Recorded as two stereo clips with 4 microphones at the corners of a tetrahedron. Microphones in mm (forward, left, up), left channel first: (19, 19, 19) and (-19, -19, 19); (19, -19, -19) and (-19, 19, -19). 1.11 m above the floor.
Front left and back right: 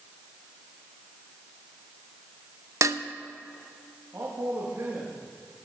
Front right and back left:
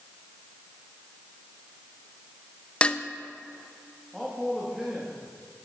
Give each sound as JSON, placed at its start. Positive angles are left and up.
{"t": 2.8, "sound": "dishes clattering", "azimuth_deg": -115, "distance_m": 0.6}
{"t": 4.1, "sound": "a man speaking", "azimuth_deg": -145, "distance_m": 2.0}